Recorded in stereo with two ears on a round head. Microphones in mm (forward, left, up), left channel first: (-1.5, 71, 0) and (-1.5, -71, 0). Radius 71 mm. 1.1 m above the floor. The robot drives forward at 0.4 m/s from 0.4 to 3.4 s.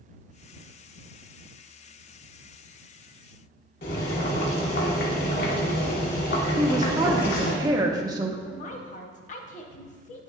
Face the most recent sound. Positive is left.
turn(degrees=45)  # may be behind; listen again after turning